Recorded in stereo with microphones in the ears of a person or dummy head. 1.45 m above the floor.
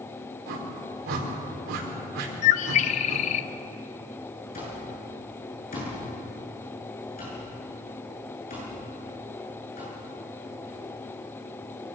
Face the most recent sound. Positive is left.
turn(degrees=35)  # may be behind; listen again after turning